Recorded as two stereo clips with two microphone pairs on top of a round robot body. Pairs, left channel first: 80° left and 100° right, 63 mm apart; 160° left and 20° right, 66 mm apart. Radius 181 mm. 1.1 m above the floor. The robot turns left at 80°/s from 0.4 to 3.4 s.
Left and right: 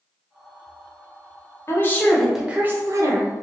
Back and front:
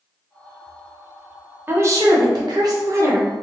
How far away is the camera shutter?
I don't hear a camera shutter.